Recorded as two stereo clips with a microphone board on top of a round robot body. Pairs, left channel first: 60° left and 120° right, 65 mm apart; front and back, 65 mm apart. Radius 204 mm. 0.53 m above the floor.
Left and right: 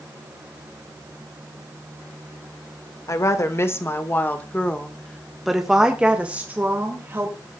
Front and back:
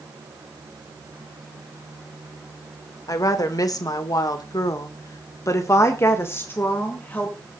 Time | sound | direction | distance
3.1 | a woman speaking | 25° left | 2.5 m